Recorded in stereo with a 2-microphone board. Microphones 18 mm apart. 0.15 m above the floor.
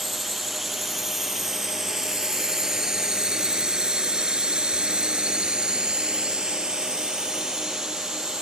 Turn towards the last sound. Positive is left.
turn(degrees=-35)  # may be behind; listen again after turning